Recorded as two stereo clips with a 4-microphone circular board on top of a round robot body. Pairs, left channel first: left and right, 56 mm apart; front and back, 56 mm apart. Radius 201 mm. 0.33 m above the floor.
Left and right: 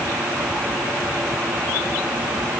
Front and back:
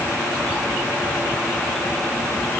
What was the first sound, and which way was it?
Only background noise.